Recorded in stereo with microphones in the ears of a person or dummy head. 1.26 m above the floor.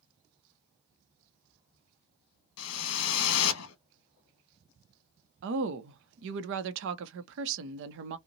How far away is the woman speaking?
About 0.6 m.